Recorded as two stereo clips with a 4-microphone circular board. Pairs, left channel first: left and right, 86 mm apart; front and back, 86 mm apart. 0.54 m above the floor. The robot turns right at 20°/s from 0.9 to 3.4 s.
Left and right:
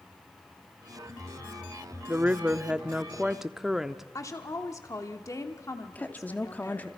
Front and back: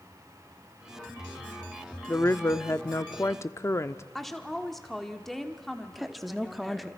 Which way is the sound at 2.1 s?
30° right.